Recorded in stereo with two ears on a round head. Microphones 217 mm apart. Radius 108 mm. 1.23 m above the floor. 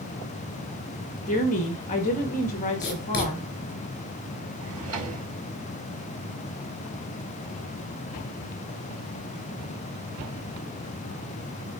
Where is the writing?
45° left (ahead or behind), 4 m.